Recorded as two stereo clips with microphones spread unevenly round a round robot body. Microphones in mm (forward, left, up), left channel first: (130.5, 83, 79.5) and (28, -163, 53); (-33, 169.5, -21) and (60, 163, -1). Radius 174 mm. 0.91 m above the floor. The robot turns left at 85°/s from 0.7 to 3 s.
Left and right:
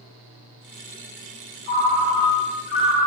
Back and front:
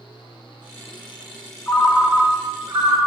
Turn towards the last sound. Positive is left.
turn(degrees=-10)